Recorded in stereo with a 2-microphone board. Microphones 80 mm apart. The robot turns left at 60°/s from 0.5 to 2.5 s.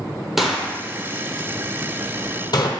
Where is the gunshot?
5° right (ahead or behind), 1.1 m; by 2.7 s 65° left (ahead or behind), 1.1 m.